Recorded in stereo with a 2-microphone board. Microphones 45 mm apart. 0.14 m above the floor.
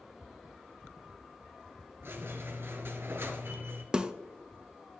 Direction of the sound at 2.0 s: 60° right (ahead or behind).